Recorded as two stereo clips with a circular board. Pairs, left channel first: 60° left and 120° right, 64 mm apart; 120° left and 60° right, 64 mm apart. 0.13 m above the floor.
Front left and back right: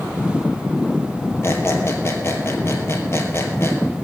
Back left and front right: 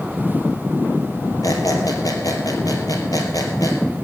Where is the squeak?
105° left, 2.5 m.